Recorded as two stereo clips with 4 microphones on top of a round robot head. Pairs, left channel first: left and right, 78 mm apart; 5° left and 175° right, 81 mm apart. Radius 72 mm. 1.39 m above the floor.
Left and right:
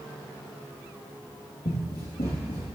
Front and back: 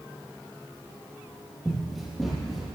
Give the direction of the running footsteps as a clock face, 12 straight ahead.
9 o'clock.